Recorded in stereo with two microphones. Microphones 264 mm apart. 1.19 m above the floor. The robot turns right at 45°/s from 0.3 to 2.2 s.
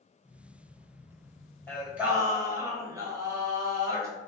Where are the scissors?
No scissors in this recording.